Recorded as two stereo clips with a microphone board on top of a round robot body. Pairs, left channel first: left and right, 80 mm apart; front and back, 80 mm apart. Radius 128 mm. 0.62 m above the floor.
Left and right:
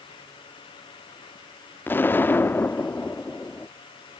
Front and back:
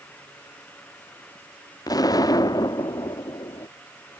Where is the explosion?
25° left.